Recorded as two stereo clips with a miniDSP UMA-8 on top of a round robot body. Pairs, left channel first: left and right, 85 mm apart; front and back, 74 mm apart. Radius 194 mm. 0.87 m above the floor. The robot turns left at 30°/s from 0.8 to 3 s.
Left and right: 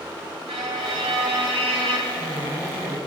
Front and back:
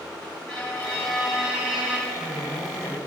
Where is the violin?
75° right, 1.7 m; by 2.0 s 110° right, 1.7 m.